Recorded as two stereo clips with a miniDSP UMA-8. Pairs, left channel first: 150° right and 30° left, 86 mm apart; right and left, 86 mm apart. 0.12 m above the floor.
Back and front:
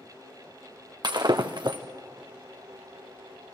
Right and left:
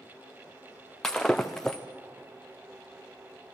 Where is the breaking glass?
5° right, 1.3 m.